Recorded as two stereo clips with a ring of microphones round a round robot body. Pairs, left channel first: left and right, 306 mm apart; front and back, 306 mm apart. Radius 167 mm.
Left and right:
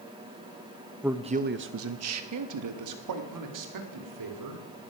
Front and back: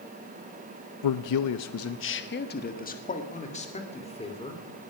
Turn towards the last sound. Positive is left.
turn(degrees=-75)